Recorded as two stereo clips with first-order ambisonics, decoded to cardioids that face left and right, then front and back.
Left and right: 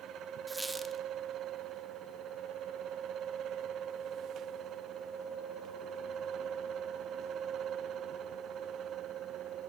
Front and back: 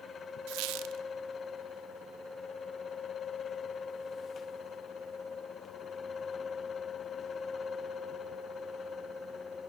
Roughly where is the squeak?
Behind.